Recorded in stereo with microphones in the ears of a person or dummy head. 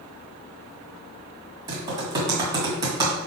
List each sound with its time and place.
1.7 s typing on a keyboard: 25° right (ahead or behind), 1.8 m